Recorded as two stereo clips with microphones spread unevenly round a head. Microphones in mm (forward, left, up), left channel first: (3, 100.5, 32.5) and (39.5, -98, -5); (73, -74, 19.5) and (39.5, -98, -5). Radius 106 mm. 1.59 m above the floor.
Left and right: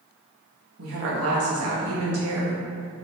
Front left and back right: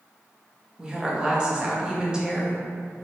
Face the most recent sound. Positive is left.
turn(degrees=-60)